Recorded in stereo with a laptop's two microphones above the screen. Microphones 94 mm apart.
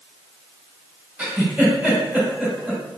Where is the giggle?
15° right (ahead or behind), 1.9 m.